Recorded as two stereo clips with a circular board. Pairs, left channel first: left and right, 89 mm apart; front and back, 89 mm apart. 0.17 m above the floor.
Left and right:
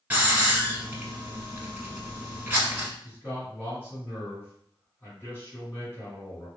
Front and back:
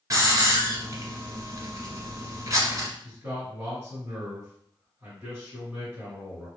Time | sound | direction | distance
0.1 | a hiss | 155° right | 0.9 m
3.0 | a man speaking | 130° left | 2.0 m